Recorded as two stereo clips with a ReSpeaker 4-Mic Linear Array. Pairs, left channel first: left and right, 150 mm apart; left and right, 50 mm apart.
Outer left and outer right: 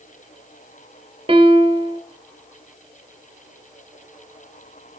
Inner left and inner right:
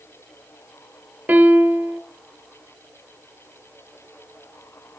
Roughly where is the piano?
Right.